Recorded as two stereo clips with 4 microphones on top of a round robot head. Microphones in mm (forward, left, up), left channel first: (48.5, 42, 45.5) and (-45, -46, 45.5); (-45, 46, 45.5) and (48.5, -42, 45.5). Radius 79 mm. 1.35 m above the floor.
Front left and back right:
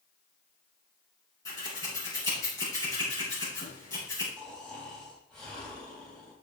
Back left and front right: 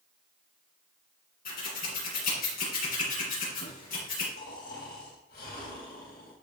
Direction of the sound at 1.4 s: 110° left.